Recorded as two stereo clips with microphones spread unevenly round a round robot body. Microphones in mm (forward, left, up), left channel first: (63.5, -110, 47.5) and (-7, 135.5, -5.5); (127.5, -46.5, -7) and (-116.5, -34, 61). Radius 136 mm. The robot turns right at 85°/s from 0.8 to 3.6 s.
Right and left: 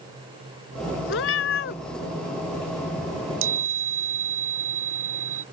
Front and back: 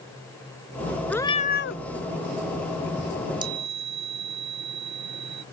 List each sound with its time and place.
1.1 s a cat meowing: 100° right; by 1.8 s 40° right
3.1 s a chime: 75° left; by 5.4 s 120° left